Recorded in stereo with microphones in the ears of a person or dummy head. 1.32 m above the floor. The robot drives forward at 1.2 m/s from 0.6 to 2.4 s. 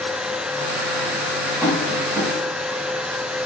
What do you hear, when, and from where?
1.6 s tapping: 15° right (ahead or behind), 6.5 m; by 2.3 s 10° right (ahead or behind), 7 m